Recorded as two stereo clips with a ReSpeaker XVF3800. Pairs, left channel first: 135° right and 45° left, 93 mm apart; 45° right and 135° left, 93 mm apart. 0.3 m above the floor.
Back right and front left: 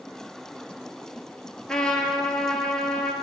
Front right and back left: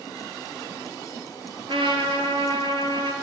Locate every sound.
1.7 s a trumpet: 145° left, 0.8 m